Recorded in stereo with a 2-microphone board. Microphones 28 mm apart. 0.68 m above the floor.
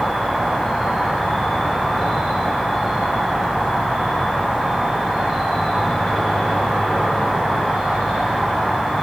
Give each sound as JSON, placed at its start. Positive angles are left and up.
{"t": 0.0, "sound": "an insect", "side_deg": -10, "distance_m": 7.5}